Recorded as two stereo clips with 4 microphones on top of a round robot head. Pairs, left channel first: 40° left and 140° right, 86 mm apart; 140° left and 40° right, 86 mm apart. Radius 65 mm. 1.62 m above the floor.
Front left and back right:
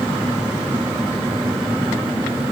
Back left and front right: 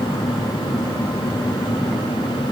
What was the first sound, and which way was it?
Only background noise.